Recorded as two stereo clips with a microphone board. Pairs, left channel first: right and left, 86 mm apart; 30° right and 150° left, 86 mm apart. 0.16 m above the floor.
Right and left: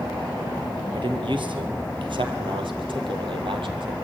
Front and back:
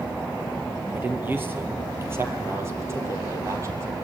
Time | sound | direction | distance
0.9 | a man speaking | 85° left | 4.5 m